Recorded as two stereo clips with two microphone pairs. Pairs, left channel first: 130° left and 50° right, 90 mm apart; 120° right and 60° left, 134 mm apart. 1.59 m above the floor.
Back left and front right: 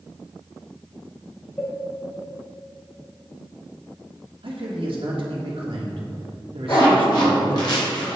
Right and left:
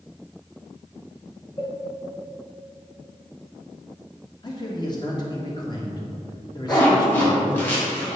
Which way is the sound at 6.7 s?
170° left.